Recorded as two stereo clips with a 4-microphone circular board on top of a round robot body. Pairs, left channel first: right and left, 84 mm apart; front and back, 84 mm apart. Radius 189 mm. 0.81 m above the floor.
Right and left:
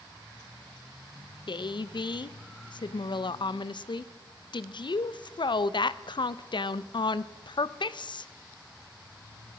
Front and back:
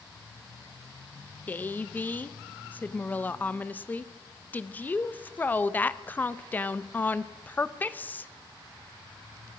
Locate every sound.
1.5 s a woman speaking: 70° right, 0.7 m